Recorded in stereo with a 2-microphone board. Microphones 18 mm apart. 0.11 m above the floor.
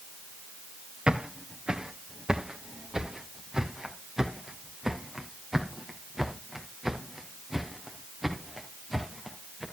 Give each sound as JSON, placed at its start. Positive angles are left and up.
{"t": 1.1, "sound": "footsteps", "side_deg": -65, "distance_m": 2.5}